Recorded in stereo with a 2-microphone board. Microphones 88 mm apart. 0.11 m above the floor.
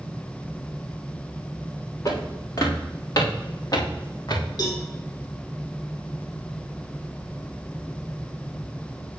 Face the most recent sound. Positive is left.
turn(degrees=45)  # may be behind; listen again after turning